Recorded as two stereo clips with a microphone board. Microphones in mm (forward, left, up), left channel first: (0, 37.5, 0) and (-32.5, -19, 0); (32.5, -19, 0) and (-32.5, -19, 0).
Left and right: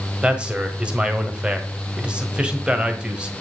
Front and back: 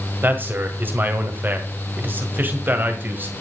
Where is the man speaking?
Straight behind, 1.5 m.